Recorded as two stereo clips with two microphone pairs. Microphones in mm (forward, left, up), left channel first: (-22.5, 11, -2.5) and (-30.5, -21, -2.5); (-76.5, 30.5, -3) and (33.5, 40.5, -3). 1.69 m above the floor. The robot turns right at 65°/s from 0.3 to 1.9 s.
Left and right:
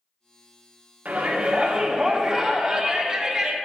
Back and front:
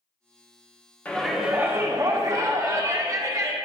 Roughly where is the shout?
Right.